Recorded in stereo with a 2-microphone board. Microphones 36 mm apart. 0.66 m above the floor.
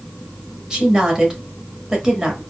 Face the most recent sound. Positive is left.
turn(degrees=-15)  # may be behind; listen again after turning